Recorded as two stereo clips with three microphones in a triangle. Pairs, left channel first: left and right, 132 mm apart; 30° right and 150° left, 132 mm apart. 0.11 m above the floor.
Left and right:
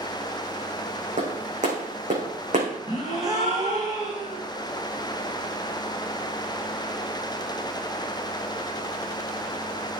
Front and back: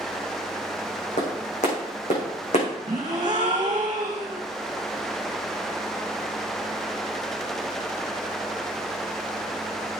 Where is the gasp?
150° right, 3 m.